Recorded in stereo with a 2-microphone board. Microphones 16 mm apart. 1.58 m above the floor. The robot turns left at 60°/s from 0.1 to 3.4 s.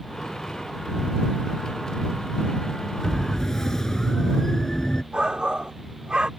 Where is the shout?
80° right.